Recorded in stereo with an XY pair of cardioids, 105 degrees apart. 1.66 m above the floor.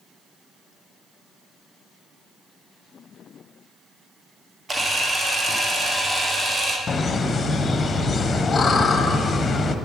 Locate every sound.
4.7 s a camera shutter: 25° right, 1.4 m
6.9 s laughter: 30° left, 1.1 m